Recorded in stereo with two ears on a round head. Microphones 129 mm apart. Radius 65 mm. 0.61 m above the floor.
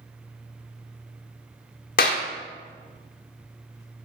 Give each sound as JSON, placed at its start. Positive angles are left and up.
{"t": 2.0, "sound": "a clap", "side_deg": 65, "distance_m": 1.2}